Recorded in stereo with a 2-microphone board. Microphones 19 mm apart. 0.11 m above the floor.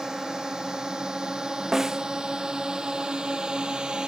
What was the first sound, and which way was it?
A drone, 35° right (ahead or behind).